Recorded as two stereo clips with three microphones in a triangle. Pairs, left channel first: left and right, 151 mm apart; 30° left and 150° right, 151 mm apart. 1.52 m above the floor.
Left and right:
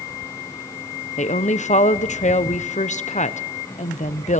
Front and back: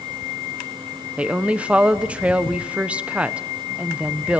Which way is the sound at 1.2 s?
130° left.